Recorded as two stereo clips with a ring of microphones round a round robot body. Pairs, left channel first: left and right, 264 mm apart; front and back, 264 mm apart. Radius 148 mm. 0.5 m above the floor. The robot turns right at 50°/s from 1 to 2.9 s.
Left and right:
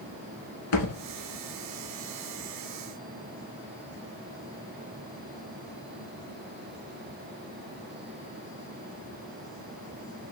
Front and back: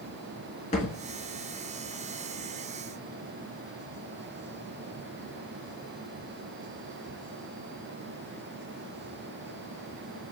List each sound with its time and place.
0.7 s a thud: 70° left, 1.2 m